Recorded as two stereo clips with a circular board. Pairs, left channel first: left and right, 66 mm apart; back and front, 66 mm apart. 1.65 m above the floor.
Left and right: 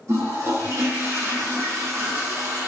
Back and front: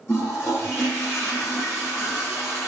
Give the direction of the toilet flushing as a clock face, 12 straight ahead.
4 o'clock.